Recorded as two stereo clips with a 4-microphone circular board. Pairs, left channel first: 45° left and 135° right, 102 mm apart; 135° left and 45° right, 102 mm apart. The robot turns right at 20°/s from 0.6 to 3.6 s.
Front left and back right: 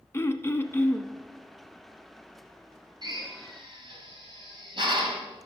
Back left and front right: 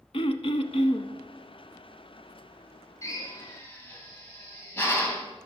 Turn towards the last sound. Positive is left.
turn(degrees=-160)